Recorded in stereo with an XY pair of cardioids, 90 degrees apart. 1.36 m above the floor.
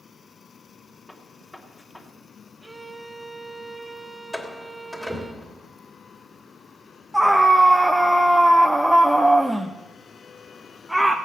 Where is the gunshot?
10° left, 3 m.